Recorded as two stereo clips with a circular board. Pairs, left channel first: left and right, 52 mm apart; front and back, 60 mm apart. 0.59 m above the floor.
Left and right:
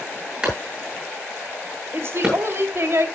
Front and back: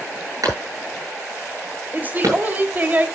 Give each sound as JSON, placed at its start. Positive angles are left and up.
{"t": 0.4, "sound": "a clap", "azimuth_deg": -160, "distance_m": 8.5}
{"t": 1.9, "sound": "a woman speaking", "azimuth_deg": -120, "distance_m": 2.5}